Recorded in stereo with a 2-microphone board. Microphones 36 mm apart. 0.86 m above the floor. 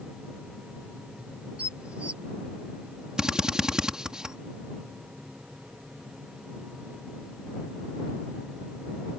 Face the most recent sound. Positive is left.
turn(degrees=-20)  # may be behind; listen again after turning